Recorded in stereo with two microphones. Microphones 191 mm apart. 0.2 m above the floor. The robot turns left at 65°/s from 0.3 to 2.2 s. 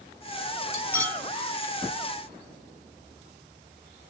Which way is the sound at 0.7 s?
20° left (ahead or behind).